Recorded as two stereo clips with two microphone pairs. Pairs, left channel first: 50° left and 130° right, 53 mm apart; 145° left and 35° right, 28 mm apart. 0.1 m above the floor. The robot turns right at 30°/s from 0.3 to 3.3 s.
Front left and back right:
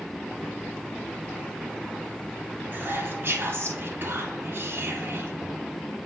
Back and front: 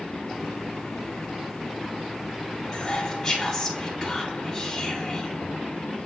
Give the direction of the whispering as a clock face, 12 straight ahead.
5 o'clock.